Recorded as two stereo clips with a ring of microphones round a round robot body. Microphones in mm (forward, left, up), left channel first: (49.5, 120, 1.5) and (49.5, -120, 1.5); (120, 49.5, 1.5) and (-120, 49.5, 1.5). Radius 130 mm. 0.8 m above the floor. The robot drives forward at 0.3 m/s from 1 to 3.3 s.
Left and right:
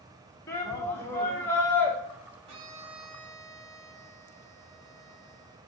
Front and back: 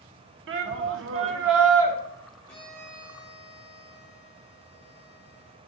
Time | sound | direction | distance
0.5 | a shout | 170° left | 1.0 m
2.5 | a violin | 85° right | 1.2 m